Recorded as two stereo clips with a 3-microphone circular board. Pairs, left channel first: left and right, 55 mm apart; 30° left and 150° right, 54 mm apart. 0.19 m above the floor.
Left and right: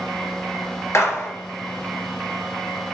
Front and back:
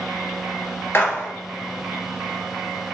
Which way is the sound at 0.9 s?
75° left.